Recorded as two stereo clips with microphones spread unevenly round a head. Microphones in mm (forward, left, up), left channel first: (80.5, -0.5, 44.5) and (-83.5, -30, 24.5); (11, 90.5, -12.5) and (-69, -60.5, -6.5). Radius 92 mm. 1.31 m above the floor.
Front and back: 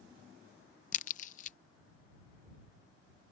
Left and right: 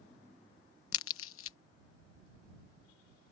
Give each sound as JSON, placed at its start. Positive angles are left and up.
{"t": 0.9, "sound": "a crack", "azimuth_deg": 60}